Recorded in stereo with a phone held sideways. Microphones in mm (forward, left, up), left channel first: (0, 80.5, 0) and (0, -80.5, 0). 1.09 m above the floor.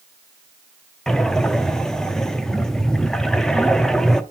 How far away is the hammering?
No hammering in this recording.